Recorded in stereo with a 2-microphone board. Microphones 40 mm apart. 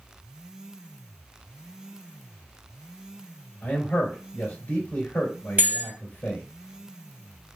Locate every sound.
3.6 s a man speaking: 45° left (ahead or behind), 1.8 m
5.6 s a bell: 50° right (ahead or behind), 1.2 m